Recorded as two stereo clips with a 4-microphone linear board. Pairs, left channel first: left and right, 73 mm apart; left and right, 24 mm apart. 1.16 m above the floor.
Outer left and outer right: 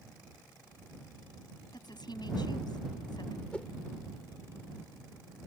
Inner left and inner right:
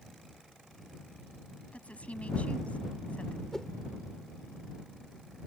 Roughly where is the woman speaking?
Left.